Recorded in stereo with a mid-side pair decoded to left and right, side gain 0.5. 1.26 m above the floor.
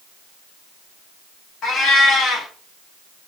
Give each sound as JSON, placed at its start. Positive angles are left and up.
{"t": 1.6, "sound": "a cat meowing", "azimuth_deg": 60, "distance_m": 1.5}